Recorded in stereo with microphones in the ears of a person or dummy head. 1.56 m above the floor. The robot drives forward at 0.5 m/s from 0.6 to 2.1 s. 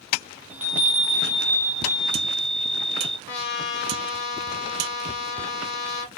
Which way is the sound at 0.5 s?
5° right (ahead or behind).